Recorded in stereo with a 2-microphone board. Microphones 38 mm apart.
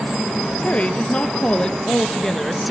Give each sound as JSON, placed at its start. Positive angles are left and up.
{"t": 0.6, "sound": "a woman speaking", "side_deg": 35, "distance_m": 3.0}